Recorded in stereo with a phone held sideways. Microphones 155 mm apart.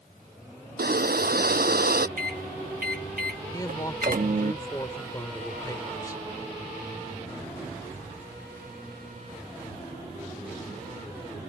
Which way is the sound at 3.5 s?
25° left (ahead or behind).